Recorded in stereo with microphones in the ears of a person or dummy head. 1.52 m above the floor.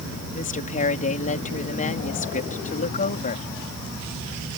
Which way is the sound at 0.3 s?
45° left (ahead or behind).